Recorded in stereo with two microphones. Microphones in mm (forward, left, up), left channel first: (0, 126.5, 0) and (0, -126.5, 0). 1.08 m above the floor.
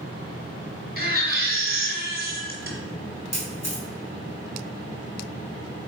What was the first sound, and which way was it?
A baby crying, 40° right (ahead or behind).